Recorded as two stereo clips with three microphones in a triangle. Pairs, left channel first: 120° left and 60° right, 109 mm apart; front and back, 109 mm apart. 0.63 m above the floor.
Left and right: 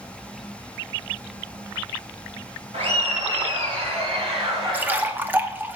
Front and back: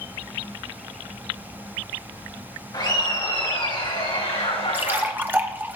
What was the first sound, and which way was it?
Laughter, 45° right.